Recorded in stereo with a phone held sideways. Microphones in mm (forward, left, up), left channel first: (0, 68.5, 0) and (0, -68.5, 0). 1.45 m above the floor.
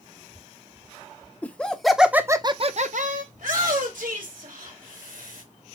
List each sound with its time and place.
1.4 s laughter: 10° left (ahead or behind), 1.3 m; by 3.2 s 70° right (ahead or behind), 0.8 m
3.3 s a shout: 80° right, 2.5 m